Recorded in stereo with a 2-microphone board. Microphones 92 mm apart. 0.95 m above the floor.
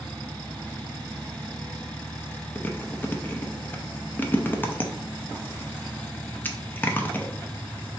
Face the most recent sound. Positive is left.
turn(degrees=20)  # may be behind; listen again after turning